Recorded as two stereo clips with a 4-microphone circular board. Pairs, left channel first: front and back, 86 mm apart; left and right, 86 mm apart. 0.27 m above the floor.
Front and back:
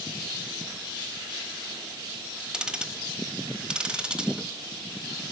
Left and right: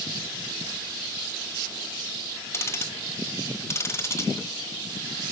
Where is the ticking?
110° left, 1.1 m.